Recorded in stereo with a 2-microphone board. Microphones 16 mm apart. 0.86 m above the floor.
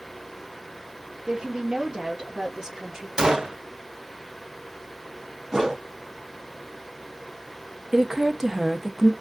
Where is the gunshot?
45° right (ahead or behind), 0.8 m.